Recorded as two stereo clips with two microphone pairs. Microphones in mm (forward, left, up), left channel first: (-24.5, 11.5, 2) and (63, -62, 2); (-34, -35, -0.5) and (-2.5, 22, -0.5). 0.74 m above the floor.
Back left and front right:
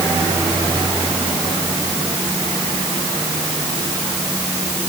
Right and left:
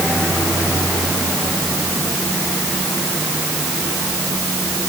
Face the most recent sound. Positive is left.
No sound to turn to.